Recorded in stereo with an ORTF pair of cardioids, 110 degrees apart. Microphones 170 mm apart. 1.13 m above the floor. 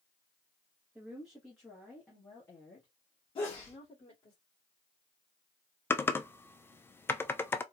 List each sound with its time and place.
0.9 s a woman speaking: 10° right, 1.3 m; by 4.3 s 30° left, 2.5 m
3.4 s a sneeze: 30° left, 1.9 m
5.9 s typing on a keyboard: 15° left, 0.5 m